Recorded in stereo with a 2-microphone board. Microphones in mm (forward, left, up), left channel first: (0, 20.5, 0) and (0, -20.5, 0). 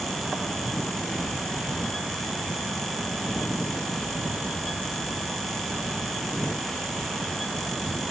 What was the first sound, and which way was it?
Only background noise.